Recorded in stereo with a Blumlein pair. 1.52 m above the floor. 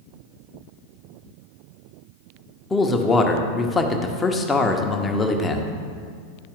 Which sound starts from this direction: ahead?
A man speaking, at 2.7 s.